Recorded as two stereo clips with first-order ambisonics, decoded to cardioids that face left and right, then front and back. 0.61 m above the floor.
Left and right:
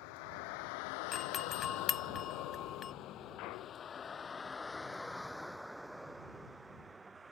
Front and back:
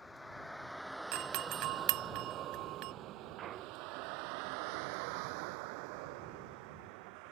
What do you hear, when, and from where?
0.0 s a vehicle: 80° left; by 7.3 s 165° right
1.1 s a doorbell: 155° left
3.4 s a clunk: 125° left